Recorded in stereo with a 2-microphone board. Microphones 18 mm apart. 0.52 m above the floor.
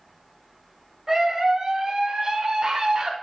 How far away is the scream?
About 1.6 m.